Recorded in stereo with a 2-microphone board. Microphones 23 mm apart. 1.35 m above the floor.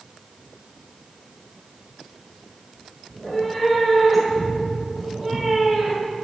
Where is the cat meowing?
15° left (ahead or behind), 1.9 m; by 6.1 s 10° right (ahead or behind), 3.5 m.